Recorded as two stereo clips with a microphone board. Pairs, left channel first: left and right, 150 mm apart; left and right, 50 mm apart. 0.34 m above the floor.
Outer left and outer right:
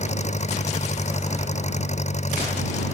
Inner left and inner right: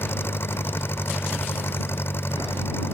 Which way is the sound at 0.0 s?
50° left (ahead or behind).